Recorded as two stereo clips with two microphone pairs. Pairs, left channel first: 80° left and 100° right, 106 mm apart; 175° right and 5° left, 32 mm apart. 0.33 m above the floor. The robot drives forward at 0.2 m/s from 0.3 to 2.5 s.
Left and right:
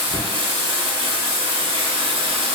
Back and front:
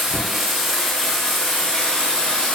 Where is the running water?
85° right, 0.7 m; by 2.5 s 120° right, 0.8 m.